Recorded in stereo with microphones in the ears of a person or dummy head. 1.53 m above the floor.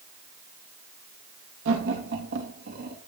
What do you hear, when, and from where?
1.6 s laughter: 65° right (ahead or behind), 3 m; by 3.0 s 50° right (ahead or behind), 3.5 m